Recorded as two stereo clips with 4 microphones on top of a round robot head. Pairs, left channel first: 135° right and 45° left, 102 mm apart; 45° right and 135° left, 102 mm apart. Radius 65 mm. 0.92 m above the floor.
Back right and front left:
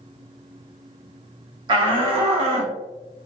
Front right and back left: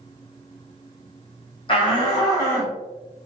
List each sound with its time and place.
1.7 s a shout: 5° right, 1.4 m; by 2.8 s 25° left, 1.7 m